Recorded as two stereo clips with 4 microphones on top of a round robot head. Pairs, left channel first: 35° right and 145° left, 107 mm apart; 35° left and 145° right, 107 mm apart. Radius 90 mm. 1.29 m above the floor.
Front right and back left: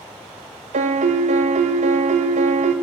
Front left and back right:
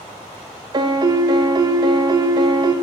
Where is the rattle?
No rattle in this recording.